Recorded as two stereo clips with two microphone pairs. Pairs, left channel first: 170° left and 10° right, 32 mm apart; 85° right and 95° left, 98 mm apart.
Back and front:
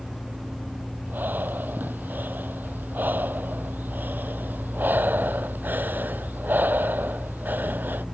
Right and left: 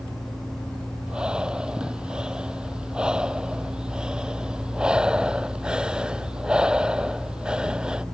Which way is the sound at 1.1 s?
15° left.